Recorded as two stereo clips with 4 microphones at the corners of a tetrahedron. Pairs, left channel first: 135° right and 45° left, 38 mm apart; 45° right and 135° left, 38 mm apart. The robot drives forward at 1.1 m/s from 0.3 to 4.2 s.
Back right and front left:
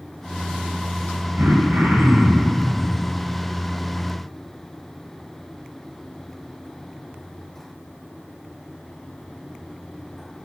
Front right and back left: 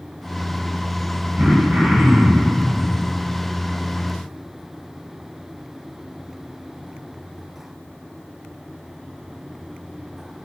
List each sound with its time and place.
1.4 s throat clearing: 80° left, 7 m; by 2.6 s 90° left, 7 m